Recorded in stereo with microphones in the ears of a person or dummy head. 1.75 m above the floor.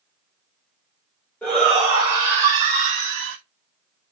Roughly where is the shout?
Centre.